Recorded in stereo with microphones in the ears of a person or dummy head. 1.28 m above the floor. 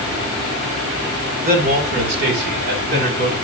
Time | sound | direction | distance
1.4 | a man speaking | 55° right (ahead or behind) | 1.8 m